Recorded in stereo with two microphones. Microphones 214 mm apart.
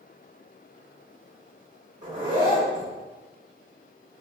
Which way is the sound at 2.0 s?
35° right (ahead or behind).